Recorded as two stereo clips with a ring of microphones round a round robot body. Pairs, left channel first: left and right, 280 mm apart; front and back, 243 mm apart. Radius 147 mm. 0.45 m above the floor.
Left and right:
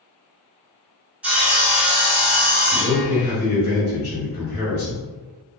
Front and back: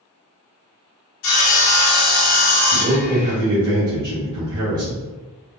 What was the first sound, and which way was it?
Sawing, 5° right.